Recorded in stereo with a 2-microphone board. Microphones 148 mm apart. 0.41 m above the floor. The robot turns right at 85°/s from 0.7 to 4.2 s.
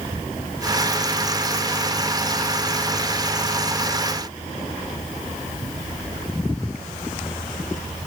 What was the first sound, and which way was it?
Only background noise.